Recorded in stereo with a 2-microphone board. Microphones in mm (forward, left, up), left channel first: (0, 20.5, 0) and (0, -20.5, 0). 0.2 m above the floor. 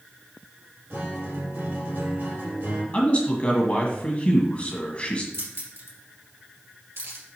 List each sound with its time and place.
0.9 s a guitar: 55° right (ahead or behind), 3.5 m
2.9 s a man speaking: 30° left (ahead or behind), 1.6 m
5.3 s keys jangling: 70° right (ahead or behind), 2.5 m